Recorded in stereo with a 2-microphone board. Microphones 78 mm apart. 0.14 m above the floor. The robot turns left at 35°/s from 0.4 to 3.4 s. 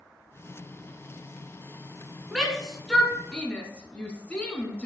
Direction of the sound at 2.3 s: 5° right (ahead or behind).